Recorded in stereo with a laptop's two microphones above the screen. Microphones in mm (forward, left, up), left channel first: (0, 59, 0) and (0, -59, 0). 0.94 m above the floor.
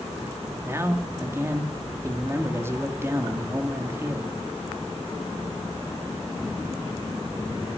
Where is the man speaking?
20° right (ahead or behind), 2.0 m.